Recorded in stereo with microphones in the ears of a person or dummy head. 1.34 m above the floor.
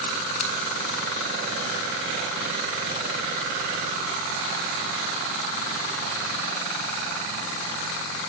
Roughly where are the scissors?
Left.